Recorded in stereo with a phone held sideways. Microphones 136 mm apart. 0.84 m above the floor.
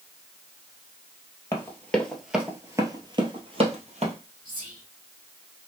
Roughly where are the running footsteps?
Left.